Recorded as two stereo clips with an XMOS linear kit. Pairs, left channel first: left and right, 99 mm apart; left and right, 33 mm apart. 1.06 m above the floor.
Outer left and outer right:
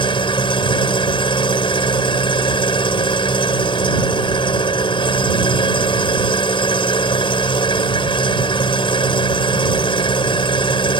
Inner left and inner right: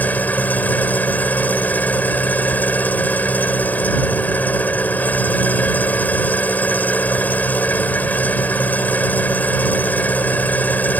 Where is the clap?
No clap in this recording.